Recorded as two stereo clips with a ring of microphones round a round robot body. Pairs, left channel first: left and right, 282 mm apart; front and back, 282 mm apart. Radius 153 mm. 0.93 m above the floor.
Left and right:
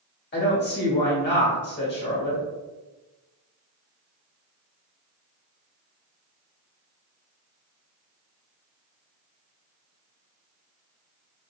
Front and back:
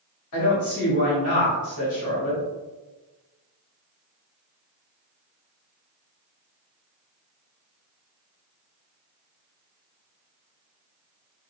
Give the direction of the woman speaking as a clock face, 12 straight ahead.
11 o'clock.